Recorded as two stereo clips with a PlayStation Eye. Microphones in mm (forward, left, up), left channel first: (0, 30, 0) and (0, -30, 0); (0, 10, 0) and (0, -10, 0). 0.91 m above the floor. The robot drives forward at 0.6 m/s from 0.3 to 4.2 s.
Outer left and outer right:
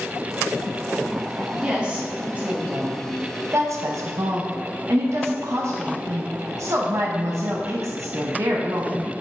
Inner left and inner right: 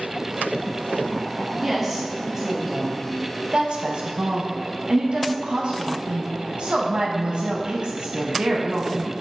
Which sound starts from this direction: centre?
A woman speaking, at 1.6 s.